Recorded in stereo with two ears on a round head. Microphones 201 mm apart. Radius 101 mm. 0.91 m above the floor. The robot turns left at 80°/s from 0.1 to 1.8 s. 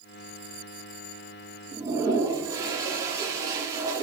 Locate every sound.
1.7 s a toilet flushing: 10° right (ahead or behind), 1.2 m; by 4.0 s 15° right (ahead or behind), 1.2 m